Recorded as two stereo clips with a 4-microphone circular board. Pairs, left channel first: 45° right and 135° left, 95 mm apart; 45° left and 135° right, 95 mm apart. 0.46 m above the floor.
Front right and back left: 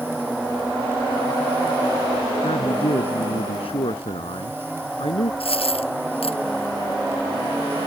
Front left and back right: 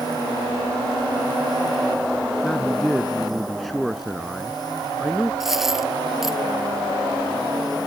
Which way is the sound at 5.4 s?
50° right.